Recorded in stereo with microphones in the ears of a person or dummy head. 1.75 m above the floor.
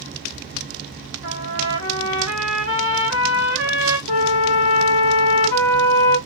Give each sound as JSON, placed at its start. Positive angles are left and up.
{"t": 1.2, "sound": "a trumpet", "side_deg": 60, "distance_m": 1.2}
{"t": 4.1, "sound": "a flute", "side_deg": 60, "distance_m": 0.7}